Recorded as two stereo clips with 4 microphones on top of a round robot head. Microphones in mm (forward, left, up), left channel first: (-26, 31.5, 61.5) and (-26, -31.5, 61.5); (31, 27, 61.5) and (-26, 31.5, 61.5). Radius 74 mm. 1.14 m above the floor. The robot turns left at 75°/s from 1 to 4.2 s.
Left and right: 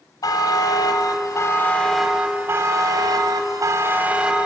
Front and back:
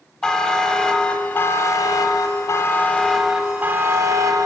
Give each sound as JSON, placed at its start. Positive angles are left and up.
{"t": 0.2, "sound": "a buzzer", "azimuth_deg": 75, "distance_m": 1.1}